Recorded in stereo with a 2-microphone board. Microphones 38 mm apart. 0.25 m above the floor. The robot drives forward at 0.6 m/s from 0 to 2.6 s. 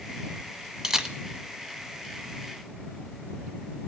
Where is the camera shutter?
15° right (ahead or behind), 1.1 m.